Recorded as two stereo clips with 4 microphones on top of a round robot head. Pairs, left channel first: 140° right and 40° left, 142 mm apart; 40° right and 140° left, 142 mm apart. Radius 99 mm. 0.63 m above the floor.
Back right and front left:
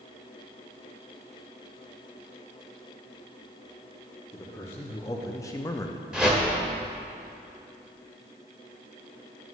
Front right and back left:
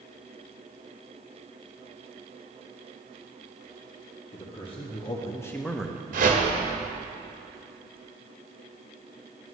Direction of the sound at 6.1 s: 125° left.